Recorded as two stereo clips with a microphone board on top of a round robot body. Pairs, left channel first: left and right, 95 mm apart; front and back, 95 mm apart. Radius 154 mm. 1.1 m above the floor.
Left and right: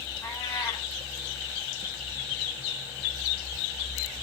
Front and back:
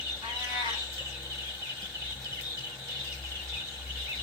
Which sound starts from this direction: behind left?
A cat meowing, at 0.2 s.